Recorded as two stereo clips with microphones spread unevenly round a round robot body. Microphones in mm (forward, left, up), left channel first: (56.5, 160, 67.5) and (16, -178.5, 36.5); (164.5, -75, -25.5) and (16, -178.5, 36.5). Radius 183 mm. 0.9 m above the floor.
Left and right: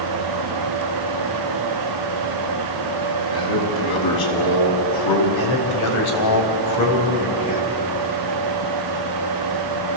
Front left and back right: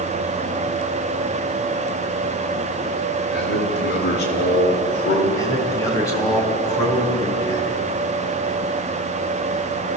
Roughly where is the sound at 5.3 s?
Behind left.